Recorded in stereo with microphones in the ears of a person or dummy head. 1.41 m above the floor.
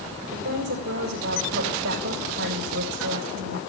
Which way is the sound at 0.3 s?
65° right (ahead or behind).